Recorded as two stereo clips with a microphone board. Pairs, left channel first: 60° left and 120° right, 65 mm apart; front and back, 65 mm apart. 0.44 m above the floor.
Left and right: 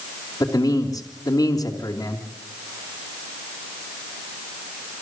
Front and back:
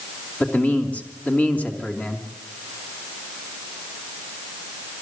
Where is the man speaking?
70° left, 3 m.